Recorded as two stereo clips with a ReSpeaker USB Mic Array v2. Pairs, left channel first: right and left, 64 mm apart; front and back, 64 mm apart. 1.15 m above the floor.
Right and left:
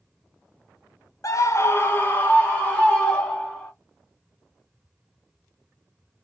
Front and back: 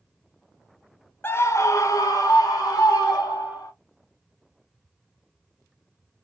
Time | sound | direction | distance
1.2 | a scream | 55° right | 0.5 m